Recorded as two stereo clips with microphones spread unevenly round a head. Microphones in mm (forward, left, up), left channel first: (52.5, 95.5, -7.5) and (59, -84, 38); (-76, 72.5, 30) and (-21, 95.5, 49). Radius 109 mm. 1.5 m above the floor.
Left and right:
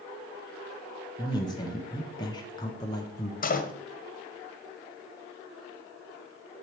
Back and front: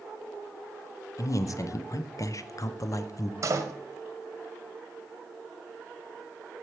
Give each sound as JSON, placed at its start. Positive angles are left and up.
{"t": 1.2, "sound": "a man speaking", "azimuth_deg": 165, "distance_m": 0.7}
{"t": 3.4, "sound": "a door slam", "azimuth_deg": 45, "distance_m": 0.9}